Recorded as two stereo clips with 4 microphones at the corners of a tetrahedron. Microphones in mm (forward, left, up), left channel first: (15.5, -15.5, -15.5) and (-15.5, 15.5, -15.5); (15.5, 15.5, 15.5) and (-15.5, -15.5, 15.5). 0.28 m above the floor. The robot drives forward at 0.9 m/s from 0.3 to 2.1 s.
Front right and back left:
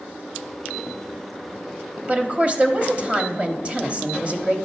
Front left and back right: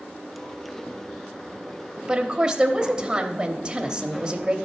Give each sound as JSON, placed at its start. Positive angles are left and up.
{"t": 2.1, "sound": "a woman speaking", "azimuth_deg": 170, "distance_m": 1.0}